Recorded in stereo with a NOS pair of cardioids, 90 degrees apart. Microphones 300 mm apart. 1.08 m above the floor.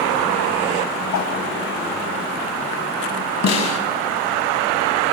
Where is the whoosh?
65° left, 4.5 m.